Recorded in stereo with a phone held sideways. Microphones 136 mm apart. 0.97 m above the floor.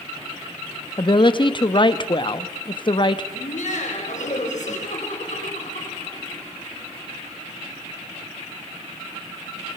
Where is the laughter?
75° left (ahead or behind), 4.5 m.